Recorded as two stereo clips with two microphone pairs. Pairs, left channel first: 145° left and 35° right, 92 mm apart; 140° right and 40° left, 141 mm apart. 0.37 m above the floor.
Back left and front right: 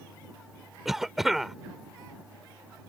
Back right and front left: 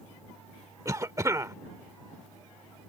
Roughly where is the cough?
Ahead left.